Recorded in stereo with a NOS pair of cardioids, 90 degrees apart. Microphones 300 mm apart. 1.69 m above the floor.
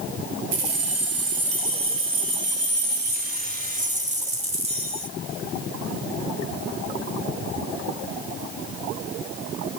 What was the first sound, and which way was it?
Keys jangling, 55° right.